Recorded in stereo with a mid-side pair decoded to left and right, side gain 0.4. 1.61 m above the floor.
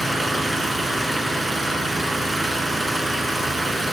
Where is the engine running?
15° right, 6 m.